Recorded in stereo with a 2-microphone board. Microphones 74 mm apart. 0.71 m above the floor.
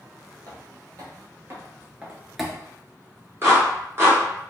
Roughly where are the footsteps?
Right.